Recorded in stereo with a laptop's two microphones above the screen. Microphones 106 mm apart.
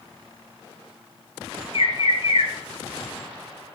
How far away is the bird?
About 3.5 m.